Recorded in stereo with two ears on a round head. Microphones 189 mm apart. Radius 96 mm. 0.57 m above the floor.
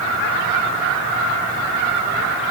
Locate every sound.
Only background noise.